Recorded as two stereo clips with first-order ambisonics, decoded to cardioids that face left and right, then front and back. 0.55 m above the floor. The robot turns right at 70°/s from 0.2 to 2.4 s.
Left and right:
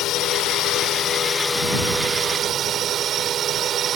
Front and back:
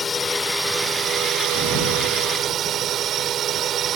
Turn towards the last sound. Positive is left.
turn(degrees=-140)